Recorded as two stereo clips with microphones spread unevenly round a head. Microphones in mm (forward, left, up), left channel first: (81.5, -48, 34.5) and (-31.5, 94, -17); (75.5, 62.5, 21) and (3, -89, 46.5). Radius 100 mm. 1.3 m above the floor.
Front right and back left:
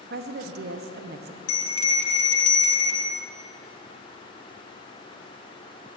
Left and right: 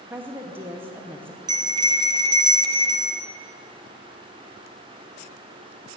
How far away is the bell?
About 1.8 m.